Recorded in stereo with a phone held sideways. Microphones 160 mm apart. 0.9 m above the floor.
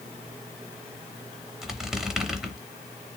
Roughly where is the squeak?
Centre.